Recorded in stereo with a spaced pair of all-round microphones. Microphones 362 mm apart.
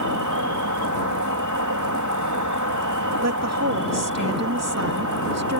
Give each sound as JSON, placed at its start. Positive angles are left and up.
{"t": 0.0, "sound": "an insect", "side_deg": -55}
{"t": 3.2, "sound": "a woman speaking", "side_deg": -45}